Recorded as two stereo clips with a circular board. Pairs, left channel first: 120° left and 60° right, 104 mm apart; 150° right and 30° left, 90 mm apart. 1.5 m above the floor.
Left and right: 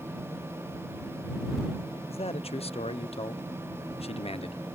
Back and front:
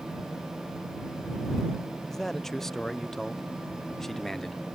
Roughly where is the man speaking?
Behind left.